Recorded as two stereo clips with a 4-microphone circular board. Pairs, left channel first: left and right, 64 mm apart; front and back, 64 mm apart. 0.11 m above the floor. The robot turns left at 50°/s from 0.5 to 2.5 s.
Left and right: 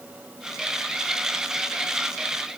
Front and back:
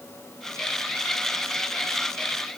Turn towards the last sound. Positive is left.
No sound to turn to.